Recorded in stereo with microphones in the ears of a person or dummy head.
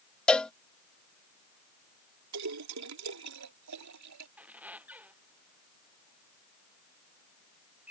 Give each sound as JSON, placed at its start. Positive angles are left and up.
{"t": 0.3, "sound": "a cowbell", "side_deg": 0}
{"t": 2.3, "sound": "a splash", "side_deg": -85}
{"t": 4.4, "sound": "a squeak", "side_deg": -10}